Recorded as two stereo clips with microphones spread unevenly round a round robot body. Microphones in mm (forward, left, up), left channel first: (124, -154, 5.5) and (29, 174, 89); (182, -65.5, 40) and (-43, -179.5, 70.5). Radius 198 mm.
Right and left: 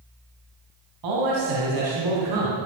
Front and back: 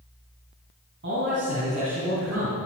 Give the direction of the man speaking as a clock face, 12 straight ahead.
7 o'clock.